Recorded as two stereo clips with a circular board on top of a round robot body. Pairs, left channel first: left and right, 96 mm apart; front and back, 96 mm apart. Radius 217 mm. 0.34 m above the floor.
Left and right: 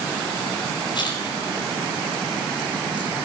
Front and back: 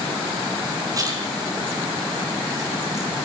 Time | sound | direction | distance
0.9 | a splash | 130° left | 4.5 m